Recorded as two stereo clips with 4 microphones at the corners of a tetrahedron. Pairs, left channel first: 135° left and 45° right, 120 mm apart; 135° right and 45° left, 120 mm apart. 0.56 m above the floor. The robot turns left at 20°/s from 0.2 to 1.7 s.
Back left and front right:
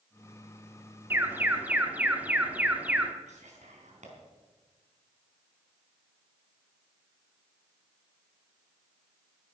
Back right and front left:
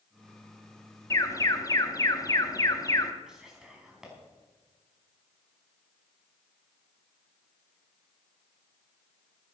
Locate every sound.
1.1 s an alarm: 100° right, 1.1 m; by 3.1 s 110° right, 1.1 m
3.3 s whispering: 40° right, 4.5 m